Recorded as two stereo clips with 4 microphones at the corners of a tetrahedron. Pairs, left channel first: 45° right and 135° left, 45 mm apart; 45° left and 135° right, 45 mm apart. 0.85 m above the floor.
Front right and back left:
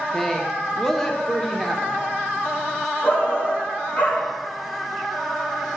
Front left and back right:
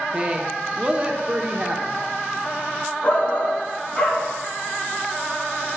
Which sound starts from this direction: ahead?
A shout, at 3.0 s.